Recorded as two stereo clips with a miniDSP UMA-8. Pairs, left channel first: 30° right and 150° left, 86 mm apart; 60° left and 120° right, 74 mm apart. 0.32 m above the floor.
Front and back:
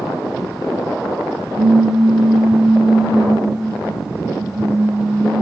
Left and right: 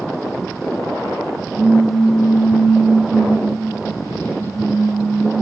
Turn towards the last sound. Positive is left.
turn(degrees=145)